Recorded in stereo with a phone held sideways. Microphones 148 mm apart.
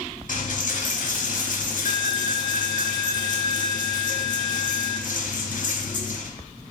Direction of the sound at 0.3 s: 60° left (ahead or behind).